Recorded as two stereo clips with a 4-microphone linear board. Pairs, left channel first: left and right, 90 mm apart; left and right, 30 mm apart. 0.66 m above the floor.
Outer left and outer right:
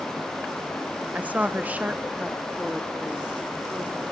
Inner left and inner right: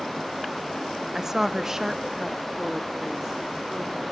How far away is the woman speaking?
About 0.8 m.